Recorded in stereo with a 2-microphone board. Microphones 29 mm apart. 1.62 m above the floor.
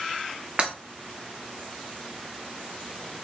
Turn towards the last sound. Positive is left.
turn(degrees=-35)  # may be behind; listen again after turning